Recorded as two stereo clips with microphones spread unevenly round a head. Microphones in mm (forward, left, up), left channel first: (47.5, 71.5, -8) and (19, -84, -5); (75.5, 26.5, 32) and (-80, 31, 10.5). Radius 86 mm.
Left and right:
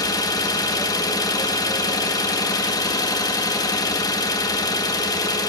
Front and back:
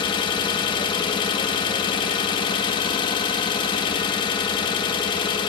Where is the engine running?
25° left, 1.3 m.